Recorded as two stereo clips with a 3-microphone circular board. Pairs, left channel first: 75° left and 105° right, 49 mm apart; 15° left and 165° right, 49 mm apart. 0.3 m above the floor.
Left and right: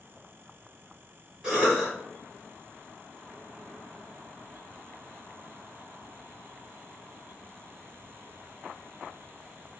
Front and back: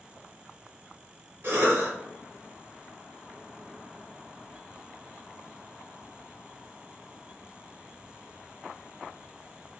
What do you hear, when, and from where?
1.4 s a cough: straight behind, 1.9 m